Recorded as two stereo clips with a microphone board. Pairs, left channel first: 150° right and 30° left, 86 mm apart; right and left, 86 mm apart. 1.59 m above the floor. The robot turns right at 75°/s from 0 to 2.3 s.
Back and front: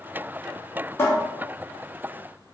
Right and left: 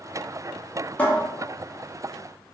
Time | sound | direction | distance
1.0 | a cupboard door | 145° right | 0.7 m